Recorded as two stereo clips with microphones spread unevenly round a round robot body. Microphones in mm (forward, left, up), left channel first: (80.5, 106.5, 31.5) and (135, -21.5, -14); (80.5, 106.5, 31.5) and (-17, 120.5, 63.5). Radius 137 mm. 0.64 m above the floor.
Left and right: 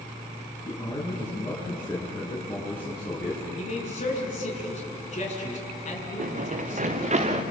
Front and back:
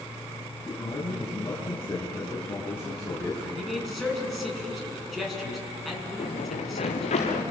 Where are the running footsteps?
45° right, 3 m; by 7.4 s 25° right, 4 m.